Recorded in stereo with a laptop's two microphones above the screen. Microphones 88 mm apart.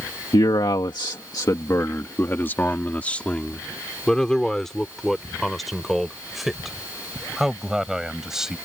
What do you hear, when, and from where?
0.3 s a man speaking: 60° left (ahead or behind); by 8.6 s 5° right (ahead or behind)